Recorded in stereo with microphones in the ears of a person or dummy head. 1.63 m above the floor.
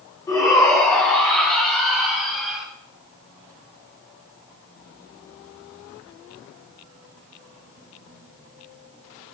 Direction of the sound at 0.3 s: 20° left (ahead or behind).